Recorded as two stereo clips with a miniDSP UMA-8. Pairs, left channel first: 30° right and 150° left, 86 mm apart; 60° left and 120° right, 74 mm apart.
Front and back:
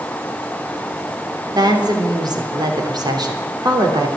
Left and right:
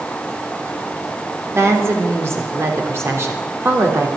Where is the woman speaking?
175° right, 3 m.